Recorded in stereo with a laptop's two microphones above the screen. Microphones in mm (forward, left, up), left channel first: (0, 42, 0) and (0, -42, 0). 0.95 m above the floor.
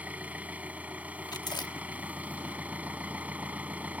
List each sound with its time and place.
0.0 s an engine running: 15° right (ahead or behind)
1.3 s chewing: 55° left (ahead or behind)